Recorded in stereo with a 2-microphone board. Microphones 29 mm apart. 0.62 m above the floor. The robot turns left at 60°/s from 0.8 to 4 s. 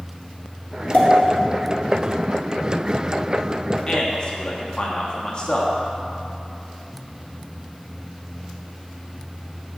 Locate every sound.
0.9 s a pop: 70° left (ahead or behind), 1.7 m; by 1.1 s 75° left (ahead or behind), 1.7 m
3.9 s a man speaking: 25° left (ahead or behind), 0.9 m; by 5.8 s 30° left (ahead or behind), 0.9 m